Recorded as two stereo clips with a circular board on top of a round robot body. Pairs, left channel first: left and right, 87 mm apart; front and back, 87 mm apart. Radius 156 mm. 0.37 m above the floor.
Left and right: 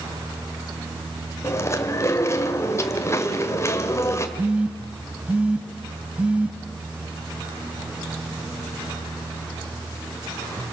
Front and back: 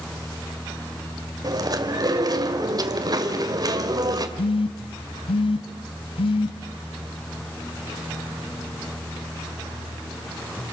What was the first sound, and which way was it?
Chewing, 145° left.